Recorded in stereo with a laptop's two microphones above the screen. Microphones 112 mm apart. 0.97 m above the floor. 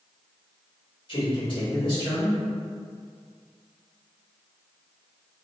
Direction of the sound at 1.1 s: 50° left (ahead or behind).